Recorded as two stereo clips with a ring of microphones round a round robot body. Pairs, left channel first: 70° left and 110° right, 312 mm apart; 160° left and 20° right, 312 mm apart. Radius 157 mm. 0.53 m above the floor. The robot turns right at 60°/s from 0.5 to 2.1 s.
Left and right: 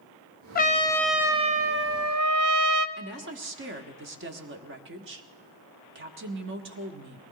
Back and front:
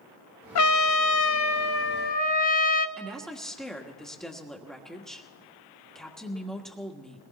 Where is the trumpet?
125° left, 0.6 m; by 2.9 s 140° right, 0.6 m.